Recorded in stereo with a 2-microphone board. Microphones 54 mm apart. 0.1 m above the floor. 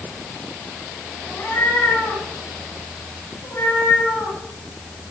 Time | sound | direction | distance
1.3 | a cat meowing | 50° left (ahead or behind) | 8 m